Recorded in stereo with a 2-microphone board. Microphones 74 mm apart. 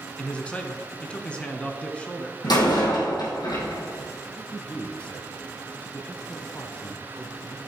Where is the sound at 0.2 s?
15° left (ahead or behind), 1.3 m.